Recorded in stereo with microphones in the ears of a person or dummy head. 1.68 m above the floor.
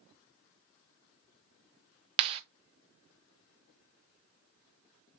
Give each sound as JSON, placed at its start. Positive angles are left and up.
{"t": 2.2, "sound": "a clap", "side_deg": -25, "distance_m": 0.6}